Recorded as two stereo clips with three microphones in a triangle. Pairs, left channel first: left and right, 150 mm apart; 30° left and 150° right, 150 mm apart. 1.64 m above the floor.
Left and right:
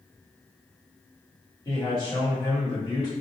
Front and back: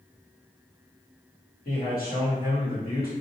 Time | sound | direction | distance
1.6 | a man speaking | 30° left | 1.3 m